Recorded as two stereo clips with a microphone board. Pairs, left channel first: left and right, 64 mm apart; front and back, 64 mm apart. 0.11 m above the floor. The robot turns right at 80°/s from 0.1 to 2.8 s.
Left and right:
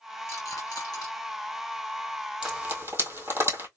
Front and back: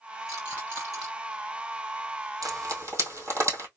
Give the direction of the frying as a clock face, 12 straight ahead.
6 o'clock.